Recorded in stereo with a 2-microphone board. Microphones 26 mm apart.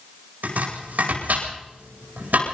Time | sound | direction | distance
0.4 | chopping | 80° right | 9.5 m